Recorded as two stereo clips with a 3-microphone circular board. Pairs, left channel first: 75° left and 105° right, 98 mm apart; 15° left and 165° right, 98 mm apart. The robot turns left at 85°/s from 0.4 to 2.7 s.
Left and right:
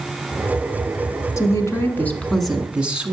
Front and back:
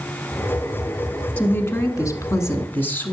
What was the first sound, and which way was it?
A woman speaking, 80° left.